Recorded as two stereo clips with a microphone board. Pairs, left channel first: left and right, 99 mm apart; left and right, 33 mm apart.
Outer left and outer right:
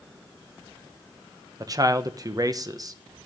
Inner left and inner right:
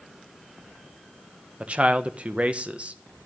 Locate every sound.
1.6 s a man speaking: 35° right (ahead or behind), 1.1 m